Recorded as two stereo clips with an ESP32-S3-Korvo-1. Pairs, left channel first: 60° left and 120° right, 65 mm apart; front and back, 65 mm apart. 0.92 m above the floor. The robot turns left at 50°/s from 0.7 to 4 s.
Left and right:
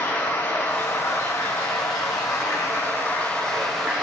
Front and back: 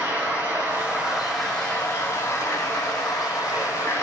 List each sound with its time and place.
0.0 s running water: 115° left, 5.5 m; by 4.0 s 50° right, 5.5 m